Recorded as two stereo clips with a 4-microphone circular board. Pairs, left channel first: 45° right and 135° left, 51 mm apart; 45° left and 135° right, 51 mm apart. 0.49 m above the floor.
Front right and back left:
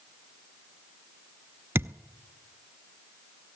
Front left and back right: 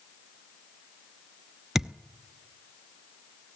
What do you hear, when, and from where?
1.8 s a thud: 145° left, 0.5 m